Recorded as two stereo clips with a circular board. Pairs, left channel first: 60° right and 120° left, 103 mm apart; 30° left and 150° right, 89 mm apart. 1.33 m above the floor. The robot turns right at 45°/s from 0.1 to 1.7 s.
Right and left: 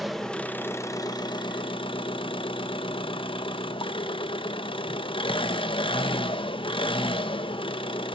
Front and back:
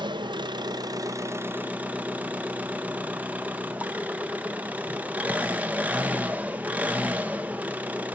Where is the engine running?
150° right, 0.7 m; by 8.2 s 80° right, 0.7 m.